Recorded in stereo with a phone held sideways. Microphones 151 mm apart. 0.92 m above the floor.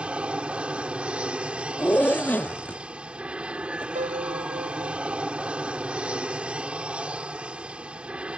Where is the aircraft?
5° right (ahead or behind).